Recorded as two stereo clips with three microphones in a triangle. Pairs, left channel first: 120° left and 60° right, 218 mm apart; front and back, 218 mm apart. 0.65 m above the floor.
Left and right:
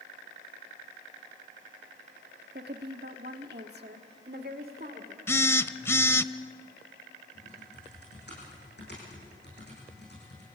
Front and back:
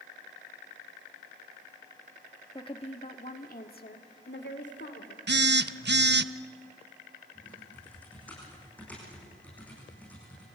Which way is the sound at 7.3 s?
85° left.